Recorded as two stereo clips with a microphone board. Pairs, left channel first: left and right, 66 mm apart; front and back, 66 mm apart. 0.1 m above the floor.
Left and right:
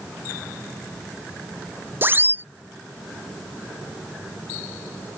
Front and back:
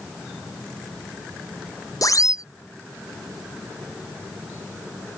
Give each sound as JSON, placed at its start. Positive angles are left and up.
{"t": 2.0, "sound": "a siren", "azimuth_deg": -30}